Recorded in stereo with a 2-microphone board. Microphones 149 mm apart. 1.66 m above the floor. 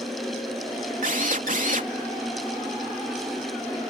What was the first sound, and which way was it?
A drill, 65° right (ahead or behind).